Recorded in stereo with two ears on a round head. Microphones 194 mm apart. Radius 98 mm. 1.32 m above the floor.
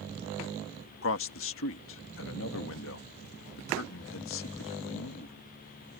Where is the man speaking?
70° left (ahead or behind).